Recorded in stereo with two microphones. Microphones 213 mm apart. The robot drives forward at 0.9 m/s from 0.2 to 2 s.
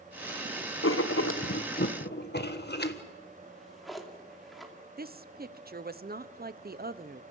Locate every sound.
0.8 s writing: 75° left (ahead or behind), 1.1 m; by 3.0 s 50° left (ahead or behind), 1.3 m
3.4 s a drawer: centre (ahead or behind), 2.5 m
5.0 s a woman speaking: 45° right (ahead or behind), 0.8 m